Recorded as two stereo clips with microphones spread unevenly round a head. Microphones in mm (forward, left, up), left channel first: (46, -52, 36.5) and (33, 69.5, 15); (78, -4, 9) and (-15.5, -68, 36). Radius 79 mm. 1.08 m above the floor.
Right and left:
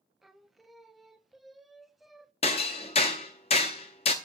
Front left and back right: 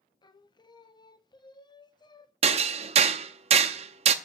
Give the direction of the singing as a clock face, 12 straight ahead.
11 o'clock.